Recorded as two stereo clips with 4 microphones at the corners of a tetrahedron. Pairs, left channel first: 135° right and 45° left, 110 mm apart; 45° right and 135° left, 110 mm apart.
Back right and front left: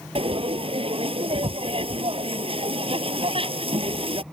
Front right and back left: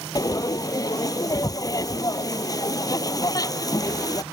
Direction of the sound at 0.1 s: 10° left.